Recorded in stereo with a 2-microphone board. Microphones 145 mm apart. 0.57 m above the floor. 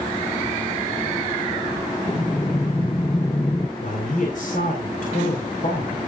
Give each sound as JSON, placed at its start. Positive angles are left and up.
{"t": 2.1, "sound": "breathing", "side_deg": 25, "distance_m": 0.6}
{"t": 3.8, "sound": "a man speaking", "side_deg": 70, "distance_m": 3.5}